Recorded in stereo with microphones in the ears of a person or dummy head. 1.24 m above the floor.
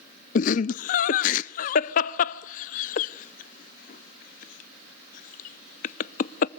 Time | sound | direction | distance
0.3 | laughter | 45° left (ahead or behind) | 0.5 m